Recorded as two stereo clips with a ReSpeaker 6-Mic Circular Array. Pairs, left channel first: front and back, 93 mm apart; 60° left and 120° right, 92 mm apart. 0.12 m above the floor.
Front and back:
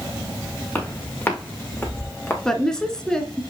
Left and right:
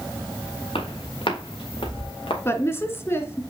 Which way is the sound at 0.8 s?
70° left.